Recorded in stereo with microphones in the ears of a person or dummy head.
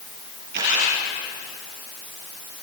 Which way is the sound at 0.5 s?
70° right (ahead or behind).